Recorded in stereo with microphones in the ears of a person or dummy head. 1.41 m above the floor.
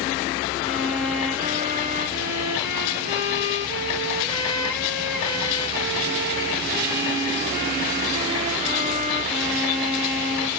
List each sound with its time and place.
0.6 s a violin: 15° right (ahead or behind), 1.4 m